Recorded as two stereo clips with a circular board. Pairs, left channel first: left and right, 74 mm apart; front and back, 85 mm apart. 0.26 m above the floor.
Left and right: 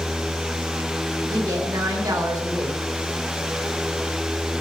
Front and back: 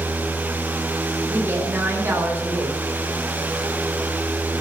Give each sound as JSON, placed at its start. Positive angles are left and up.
{"t": 1.3, "sound": "a woman speaking", "azimuth_deg": -120, "distance_m": 4.0}